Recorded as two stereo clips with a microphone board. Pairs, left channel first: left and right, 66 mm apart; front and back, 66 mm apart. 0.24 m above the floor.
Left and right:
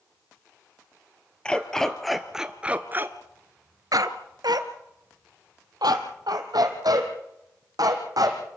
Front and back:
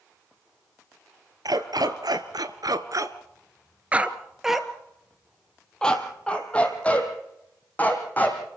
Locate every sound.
1.4 s a dog barking: 165° left, 1.9 m; by 8.4 s 65° right, 4.5 m